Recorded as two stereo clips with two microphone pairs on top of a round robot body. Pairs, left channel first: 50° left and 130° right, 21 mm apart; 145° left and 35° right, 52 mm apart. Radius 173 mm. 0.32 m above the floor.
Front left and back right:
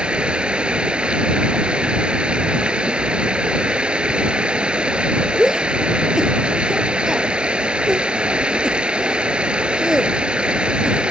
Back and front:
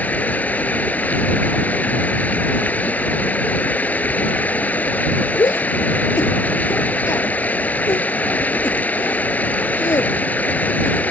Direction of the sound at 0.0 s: 155° right.